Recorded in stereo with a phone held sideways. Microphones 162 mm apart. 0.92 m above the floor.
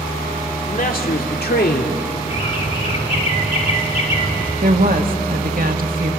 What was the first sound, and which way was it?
A man speaking, 55° left (ahead or behind).